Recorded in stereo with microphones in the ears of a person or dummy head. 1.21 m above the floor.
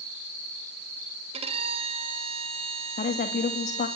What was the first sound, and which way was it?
A violin, 35° right (ahead or behind).